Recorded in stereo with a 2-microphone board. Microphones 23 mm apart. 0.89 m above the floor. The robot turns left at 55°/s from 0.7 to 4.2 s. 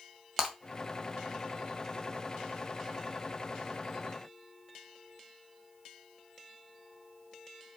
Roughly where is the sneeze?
I don't hear a sneeze.